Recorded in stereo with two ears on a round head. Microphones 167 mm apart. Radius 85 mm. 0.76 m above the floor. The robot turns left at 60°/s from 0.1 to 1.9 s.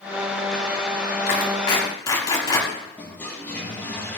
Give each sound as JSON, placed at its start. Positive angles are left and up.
{"t": 1.3, "sound": "a clap", "side_deg": 60, "distance_m": 5.0}
{"t": 3.0, "sound": "a toilet flushing", "side_deg": 10, "distance_m": 8.5}